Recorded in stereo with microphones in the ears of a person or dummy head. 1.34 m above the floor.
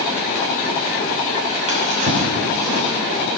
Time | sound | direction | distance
1.7 | a drawer | 40° right (ahead or behind) | 2.5 m